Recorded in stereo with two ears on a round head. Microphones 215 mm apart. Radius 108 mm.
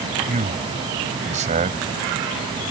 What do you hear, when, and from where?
0.3 s a man speaking: 30° right (ahead or behind)